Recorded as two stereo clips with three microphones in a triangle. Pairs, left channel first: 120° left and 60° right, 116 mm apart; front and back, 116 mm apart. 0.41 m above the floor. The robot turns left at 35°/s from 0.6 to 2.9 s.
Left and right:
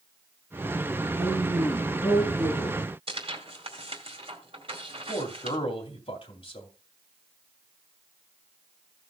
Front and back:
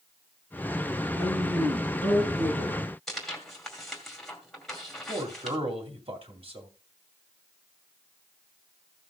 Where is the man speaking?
155° left, 2.5 m.